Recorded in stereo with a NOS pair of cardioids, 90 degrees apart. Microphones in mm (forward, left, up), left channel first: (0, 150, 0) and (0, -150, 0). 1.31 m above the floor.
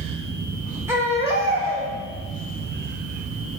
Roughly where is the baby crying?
Ahead.